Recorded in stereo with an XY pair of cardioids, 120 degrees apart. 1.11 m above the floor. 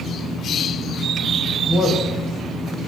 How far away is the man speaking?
About 1.1 m.